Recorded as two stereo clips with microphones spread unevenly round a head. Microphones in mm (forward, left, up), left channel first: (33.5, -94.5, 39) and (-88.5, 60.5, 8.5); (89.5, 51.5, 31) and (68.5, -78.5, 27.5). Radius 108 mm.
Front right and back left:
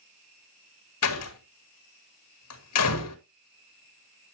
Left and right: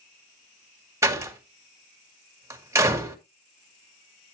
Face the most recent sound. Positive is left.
turn(degrees=-30)